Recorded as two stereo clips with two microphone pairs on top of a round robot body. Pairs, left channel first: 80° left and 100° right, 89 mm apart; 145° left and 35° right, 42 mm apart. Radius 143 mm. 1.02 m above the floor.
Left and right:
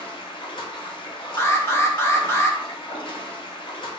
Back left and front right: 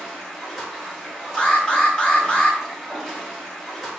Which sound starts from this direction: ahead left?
Running water, at 0.0 s.